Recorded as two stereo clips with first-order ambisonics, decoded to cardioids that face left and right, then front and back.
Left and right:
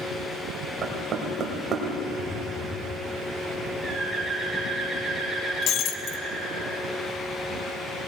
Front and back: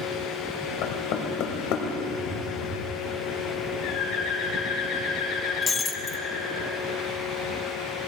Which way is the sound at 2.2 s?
165° left.